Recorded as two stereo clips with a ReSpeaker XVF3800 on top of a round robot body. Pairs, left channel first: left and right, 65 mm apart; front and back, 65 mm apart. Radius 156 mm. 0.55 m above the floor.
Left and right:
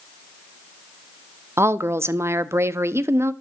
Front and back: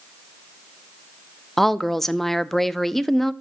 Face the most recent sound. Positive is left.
turn(degrees=-85)